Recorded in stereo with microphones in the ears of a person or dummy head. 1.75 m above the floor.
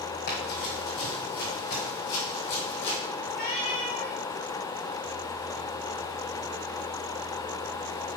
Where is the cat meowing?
45° left (ahead or behind), 1.7 m.